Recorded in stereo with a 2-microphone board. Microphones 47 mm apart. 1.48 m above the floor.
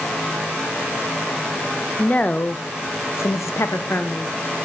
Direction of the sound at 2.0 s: 25° left (ahead or behind).